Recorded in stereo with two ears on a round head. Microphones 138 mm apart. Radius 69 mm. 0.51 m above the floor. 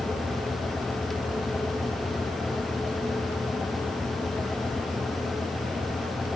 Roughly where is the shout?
No shout in this recording.